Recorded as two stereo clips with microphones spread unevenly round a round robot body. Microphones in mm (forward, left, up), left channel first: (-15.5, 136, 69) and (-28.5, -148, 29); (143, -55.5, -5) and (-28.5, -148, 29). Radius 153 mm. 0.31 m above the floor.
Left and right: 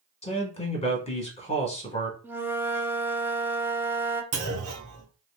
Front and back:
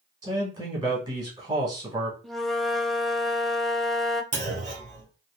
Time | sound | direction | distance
0.2 | a man speaking | 145° left | 1.3 m
2.2 | a flute | 35° right | 0.5 m
4.3 | a clunk | 100° right | 2 m